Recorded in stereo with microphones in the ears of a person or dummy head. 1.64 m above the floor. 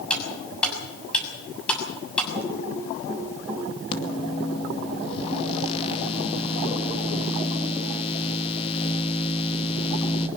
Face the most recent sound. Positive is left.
turn(degrees=35)  # may be behind; listen again after turning